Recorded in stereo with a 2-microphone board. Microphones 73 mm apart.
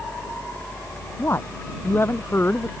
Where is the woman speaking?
35° left (ahead or behind); by 2.7 s 30° left (ahead or behind).